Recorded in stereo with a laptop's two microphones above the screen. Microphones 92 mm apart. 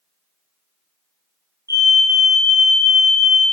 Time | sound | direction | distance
1.7 | a fire alarm | 30° right (ahead or behind) | 1.4 m